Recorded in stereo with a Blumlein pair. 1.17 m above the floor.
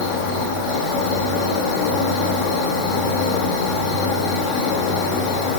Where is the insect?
35° left, 2.5 m.